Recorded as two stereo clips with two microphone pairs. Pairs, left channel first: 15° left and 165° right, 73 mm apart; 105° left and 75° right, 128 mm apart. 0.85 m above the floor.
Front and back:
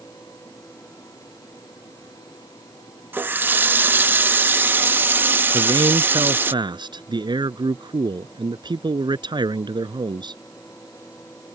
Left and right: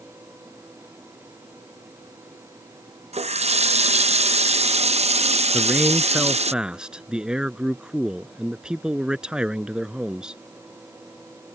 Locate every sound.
3.1 s a running tap: 105° right
5.5 s a man speaking: 160° right